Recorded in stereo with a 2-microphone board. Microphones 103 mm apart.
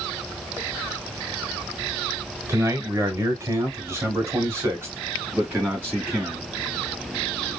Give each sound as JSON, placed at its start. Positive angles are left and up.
{"t": 2.5, "sound": "a man speaking", "side_deg": -25, "distance_m": 1.5}